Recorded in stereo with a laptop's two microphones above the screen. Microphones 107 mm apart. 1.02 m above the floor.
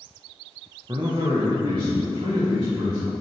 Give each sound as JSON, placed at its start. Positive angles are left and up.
{"t": 0.9, "sound": "a man speaking", "side_deg": -40, "distance_m": 0.5}